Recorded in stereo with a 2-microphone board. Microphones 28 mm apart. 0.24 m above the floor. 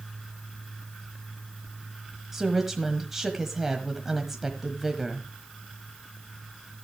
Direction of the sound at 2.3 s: 15° right (ahead or behind).